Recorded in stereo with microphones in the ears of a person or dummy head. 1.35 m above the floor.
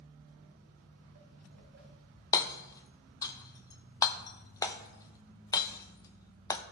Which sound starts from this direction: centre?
Hammering, at 2.3 s.